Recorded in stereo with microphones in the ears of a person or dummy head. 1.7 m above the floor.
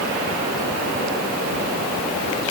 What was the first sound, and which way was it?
Only background noise.